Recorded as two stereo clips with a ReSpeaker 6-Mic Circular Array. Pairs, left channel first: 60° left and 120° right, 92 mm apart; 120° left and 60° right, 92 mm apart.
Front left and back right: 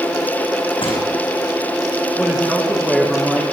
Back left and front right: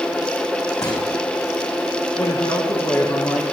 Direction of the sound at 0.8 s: 75° left.